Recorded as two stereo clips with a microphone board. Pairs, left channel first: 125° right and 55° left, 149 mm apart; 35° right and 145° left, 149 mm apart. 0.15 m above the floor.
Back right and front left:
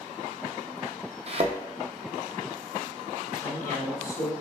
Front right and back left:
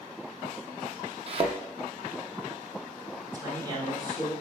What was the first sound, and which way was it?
A thud, 100° left.